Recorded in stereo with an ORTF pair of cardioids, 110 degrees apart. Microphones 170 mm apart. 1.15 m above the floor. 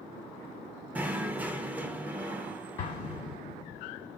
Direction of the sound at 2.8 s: 40° left.